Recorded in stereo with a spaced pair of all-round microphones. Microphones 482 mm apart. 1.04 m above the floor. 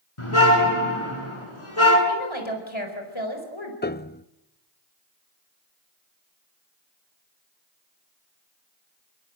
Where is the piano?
20° left (ahead or behind), 0.6 m.